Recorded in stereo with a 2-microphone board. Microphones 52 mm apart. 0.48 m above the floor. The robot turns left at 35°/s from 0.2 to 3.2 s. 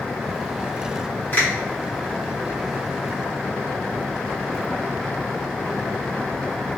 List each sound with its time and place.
1.3 s a finger snap: 30° left (ahead or behind), 1.6 m